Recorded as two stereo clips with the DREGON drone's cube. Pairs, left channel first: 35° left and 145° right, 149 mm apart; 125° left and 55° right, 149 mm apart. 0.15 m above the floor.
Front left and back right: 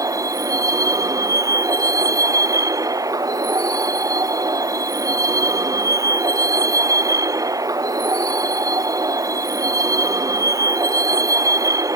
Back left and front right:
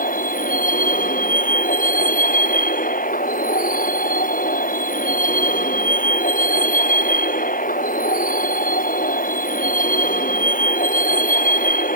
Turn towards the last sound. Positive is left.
turn(degrees=145)